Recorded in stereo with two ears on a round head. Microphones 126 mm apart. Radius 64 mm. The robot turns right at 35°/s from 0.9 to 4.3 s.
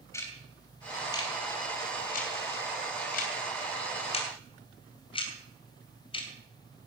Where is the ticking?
20° left (ahead or behind), 2.5 m; by 6.3 s 35° left (ahead or behind), 2.5 m.